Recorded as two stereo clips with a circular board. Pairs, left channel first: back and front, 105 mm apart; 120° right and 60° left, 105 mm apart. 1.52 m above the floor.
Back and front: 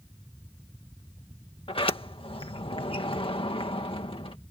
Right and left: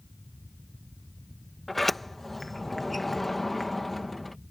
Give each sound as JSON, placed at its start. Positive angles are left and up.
{"t": 1.7, "sound": "a sliding door", "azimuth_deg": 150}